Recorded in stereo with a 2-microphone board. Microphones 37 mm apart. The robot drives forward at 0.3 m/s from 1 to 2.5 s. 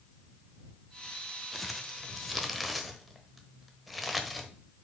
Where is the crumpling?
Centre (ahead or behind), 0.7 m.